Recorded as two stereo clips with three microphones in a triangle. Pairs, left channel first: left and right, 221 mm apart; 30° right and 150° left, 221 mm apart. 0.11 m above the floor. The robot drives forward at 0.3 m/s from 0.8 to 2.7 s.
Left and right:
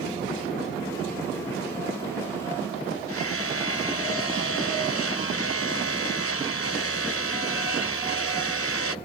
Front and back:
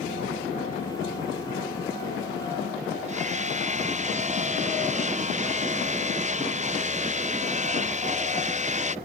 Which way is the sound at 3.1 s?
95° left.